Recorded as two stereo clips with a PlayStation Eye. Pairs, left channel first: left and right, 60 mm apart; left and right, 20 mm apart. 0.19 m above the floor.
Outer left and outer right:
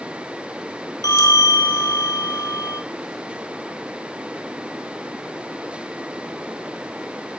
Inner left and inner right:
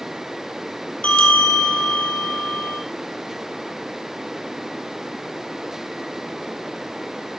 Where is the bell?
70° left (ahead or behind), 2.5 m.